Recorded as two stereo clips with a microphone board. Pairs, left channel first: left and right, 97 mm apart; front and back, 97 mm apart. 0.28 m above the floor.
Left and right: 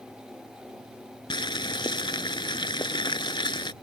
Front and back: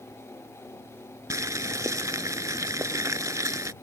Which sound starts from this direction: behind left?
Boiling, at 1.3 s.